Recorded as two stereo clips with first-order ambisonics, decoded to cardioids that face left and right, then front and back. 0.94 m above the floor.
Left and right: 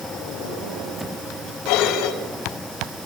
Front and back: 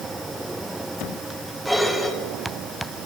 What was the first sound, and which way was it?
Dishes clattering, 90° left.